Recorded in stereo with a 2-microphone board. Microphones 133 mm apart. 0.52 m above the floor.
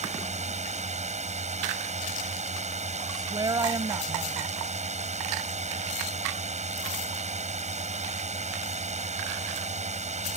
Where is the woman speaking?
30° right (ahead or behind).